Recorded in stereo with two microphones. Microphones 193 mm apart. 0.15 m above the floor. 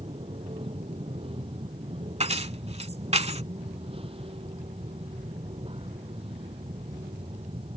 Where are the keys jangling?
35° right (ahead or behind).